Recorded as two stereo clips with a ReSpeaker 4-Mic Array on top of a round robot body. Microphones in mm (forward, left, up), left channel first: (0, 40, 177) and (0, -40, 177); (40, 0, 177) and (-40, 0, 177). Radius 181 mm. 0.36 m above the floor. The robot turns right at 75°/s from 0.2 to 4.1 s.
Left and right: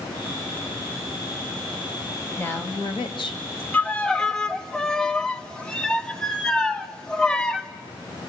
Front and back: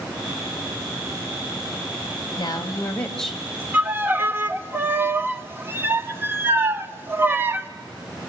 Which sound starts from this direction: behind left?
A violin, at 3.7 s.